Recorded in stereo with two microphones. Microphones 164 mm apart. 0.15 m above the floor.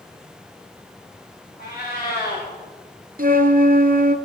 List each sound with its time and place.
1.6 s a cat meowing: 60° left (ahead or behind), 6.5 m
3.2 s a flute: 60° right (ahead or behind), 0.7 m